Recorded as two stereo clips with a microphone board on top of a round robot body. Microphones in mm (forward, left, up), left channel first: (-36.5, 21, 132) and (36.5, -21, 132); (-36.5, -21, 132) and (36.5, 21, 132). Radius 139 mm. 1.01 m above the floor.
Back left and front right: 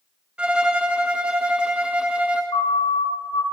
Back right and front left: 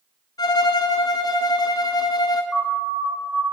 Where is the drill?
I don't hear a drill.